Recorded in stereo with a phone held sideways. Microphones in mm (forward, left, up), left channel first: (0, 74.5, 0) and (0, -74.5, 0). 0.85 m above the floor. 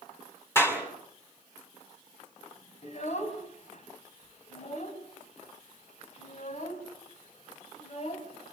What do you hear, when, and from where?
0.6 s a clap: 15° left (ahead or behind), 5.5 m
2.8 s a child speaking: 50° left (ahead or behind), 3.5 m